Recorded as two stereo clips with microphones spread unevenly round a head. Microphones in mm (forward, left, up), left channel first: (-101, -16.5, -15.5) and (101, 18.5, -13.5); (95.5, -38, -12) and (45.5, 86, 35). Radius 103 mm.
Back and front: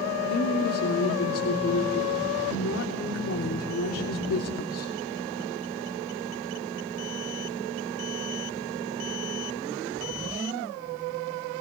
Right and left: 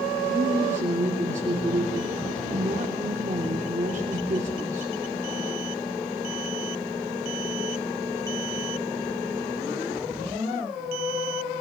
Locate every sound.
0.3 s a woman speaking: 170° left, 3 m